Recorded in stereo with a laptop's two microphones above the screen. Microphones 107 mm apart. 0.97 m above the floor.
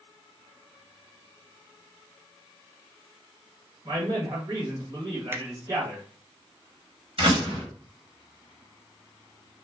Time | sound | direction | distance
3.9 | a man speaking | 40° right (ahead or behind) | 1.1 m
5.3 | a finger snap | 20° right (ahead or behind) | 0.5 m
7.2 | a door slam | 60° right (ahead or behind) | 1.3 m